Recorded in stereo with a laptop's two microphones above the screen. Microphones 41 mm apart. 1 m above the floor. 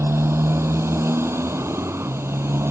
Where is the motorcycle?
80° right.